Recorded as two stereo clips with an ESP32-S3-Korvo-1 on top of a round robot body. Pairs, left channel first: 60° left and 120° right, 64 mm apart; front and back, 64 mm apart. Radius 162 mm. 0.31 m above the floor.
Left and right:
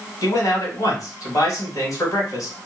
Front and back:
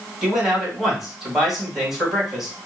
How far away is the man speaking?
About 2.5 m.